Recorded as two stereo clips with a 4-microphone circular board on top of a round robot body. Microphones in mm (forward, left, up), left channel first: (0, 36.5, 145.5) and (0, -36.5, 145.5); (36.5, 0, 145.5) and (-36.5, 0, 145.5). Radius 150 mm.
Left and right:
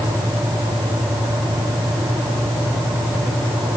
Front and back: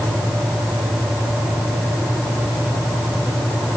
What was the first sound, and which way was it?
Only background noise.